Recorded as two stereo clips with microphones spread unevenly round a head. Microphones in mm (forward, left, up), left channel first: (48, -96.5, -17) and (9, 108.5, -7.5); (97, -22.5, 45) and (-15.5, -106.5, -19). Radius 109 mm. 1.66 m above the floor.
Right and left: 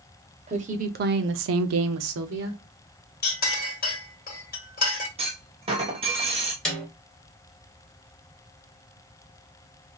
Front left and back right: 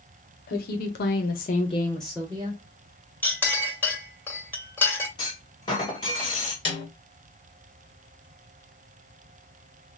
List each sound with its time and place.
0.5 s a woman speaking: 40° left, 1.0 m; by 2.6 s 150° left, 0.8 m
3.2 s a clink: 30° right, 1.9 m
5.2 s a clunk: 50° left, 1.2 m
6.7 s a snare drum: 10° left, 2 m